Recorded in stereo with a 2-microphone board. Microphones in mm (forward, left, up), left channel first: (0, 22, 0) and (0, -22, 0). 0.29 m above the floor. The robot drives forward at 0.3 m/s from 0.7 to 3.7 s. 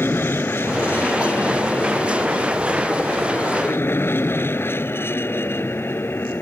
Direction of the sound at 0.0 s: 60° left (ahead or behind).